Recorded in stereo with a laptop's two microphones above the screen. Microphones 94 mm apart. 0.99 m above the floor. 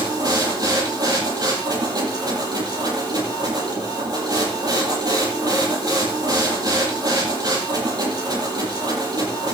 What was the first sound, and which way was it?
A machine running, 45° right (ahead or behind).